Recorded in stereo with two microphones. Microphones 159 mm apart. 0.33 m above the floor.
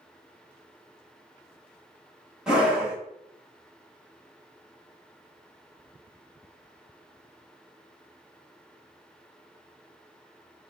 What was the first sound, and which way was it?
A scream, 5° right (ahead or behind).